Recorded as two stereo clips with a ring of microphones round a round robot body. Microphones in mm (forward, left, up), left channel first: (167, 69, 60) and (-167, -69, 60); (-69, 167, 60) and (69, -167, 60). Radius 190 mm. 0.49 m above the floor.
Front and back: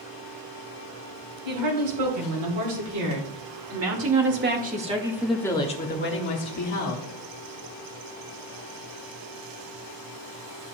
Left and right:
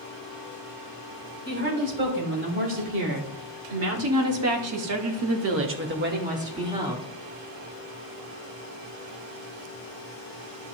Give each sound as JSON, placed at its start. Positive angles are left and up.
{"t": 1.4, "sound": "a woman speaking", "azimuth_deg": -130, "distance_m": 3.5}